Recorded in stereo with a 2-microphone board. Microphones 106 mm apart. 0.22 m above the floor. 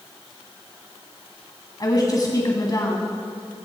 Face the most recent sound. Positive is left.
turn(degrees=40)  # may be behind; listen again after turning